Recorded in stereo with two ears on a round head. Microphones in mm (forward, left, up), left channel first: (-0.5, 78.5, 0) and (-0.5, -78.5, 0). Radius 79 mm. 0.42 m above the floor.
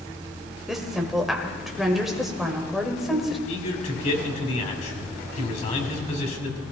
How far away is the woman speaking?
About 1.9 m.